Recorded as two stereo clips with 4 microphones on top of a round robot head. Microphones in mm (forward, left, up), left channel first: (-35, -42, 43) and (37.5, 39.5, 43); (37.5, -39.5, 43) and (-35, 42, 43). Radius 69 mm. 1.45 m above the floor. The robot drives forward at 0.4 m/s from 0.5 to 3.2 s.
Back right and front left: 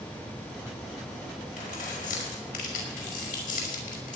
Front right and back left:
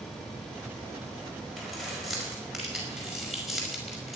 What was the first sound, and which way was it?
Keys jangling, 135° right.